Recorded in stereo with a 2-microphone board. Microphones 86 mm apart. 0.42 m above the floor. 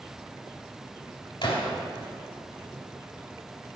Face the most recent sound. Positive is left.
turn(degrees=65)  # may be behind; listen again after turning